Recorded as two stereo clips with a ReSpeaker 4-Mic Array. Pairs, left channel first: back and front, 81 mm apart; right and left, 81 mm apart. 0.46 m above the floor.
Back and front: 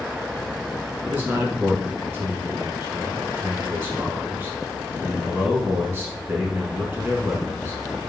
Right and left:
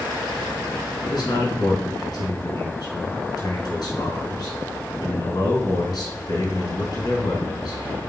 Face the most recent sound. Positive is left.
turn(degrees=-70)